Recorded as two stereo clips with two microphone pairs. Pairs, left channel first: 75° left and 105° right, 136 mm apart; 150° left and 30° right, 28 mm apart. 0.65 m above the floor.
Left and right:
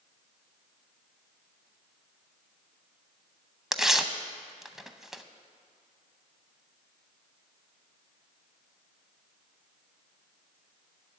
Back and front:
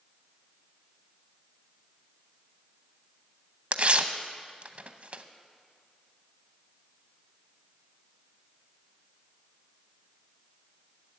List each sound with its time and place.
3.7 s tearing paper: 15° right, 0.6 m